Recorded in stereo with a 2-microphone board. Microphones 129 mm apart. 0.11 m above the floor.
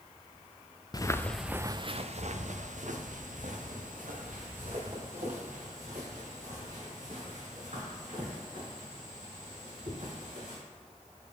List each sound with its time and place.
0.9 s footsteps: 35° left (ahead or behind), 0.6 m; by 10.6 s 85° right, 6.5 m